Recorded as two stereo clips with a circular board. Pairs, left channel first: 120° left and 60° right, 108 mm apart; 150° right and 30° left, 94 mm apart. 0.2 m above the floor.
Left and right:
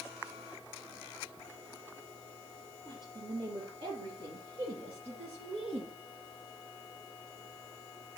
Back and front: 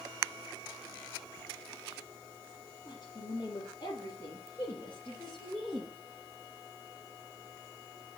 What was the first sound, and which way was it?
A woman speaking, 105° right.